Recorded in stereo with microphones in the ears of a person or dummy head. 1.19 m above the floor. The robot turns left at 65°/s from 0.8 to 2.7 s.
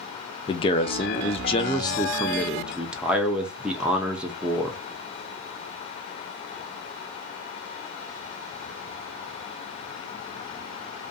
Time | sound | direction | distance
0.5 | a man speaking | 115° left | 0.5 m